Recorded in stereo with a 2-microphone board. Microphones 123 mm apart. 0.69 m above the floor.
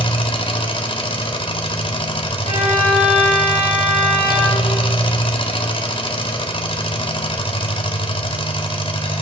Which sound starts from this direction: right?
A violin, at 2.4 s.